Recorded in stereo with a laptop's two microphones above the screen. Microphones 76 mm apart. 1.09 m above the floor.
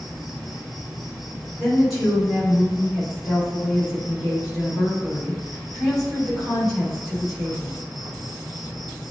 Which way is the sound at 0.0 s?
5° right (ahead or behind).